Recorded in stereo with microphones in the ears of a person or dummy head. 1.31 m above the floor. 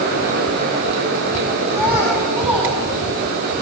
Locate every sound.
1.7 s a child speaking: 5° right (ahead or behind), 6.5 m